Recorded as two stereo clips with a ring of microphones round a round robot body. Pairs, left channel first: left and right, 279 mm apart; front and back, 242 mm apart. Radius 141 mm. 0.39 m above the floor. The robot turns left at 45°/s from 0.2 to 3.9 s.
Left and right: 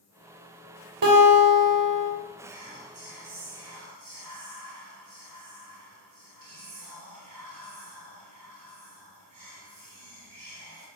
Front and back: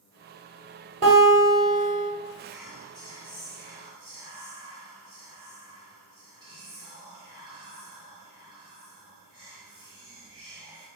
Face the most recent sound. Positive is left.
turn(degrees=-110)